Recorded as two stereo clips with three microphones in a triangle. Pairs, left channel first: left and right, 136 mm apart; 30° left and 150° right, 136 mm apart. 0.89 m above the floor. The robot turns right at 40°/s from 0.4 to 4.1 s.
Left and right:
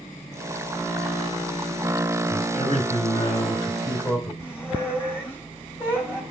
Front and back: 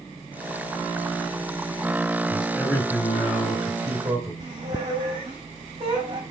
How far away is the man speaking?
About 4 m.